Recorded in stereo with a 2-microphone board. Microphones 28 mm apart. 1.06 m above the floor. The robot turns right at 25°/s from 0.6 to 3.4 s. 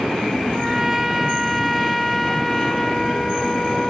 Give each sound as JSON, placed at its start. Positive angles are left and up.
{"t": 0.5, "sound": "a trumpet", "side_deg": -10, "distance_m": 0.6}